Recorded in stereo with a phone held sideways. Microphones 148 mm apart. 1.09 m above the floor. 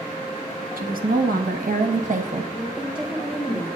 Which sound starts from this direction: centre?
A woman speaking, at 2.5 s.